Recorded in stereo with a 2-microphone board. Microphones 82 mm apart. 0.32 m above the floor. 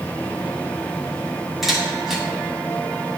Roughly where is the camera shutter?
Centre.